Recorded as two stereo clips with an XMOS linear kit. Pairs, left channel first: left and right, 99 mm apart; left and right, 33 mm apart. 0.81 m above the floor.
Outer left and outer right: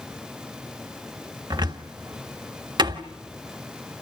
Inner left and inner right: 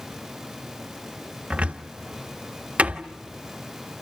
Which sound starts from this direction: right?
A cupboard door, at 1.5 s.